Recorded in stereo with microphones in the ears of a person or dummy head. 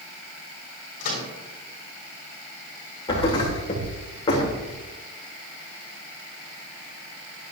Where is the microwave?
55° left (ahead or behind), 3 m.